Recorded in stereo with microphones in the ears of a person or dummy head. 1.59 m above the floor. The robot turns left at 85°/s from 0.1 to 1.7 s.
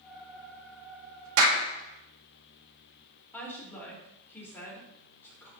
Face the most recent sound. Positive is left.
turn(degrees=10)  # may be behind; listen again after turning